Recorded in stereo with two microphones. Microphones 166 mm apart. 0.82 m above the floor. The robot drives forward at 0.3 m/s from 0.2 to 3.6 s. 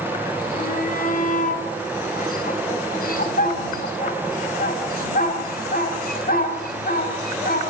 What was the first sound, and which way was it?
A shout, 55° left (ahead or behind).